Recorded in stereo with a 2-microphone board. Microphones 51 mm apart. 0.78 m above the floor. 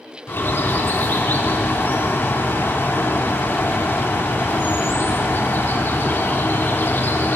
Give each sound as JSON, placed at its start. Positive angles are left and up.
{"t": 0.3, "sound": "a bird", "side_deg": 45, "distance_m": 0.6}